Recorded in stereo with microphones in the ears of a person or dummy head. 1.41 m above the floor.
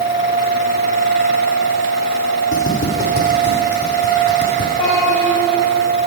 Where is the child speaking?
40° left (ahead or behind), 3.5 m.